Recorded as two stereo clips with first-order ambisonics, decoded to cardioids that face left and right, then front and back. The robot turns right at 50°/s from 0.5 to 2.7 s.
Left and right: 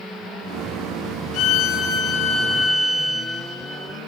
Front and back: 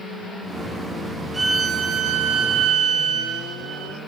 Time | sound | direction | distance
1.3 | a violin | 105° left | 0.8 m